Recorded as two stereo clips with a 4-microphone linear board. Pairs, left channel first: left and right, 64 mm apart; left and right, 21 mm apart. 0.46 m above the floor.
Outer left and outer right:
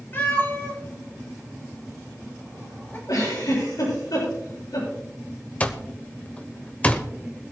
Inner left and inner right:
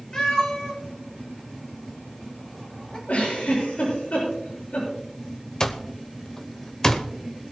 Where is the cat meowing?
35° left (ahead or behind), 4.5 m.